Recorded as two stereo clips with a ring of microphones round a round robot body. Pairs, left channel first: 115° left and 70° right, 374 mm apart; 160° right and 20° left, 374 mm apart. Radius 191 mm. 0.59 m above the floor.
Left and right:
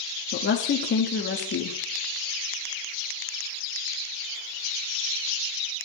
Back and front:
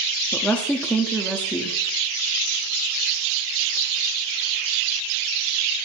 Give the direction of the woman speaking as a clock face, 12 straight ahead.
8 o'clock.